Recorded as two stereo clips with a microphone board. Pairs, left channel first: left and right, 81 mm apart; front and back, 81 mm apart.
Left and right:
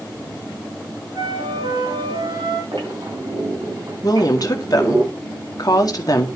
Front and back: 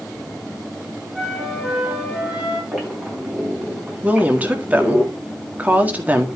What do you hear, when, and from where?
1.1 s a flute: 95° right, 2.5 m
2.7 s a squeak: 105° right, 4.5 m
4.0 s a woman speaking: 115° left, 1.9 m